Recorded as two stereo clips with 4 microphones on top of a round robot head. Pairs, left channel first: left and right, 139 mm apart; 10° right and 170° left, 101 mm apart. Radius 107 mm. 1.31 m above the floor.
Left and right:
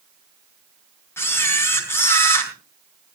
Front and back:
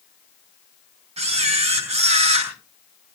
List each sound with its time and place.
1.2 s a camera shutter: 160° left, 4 m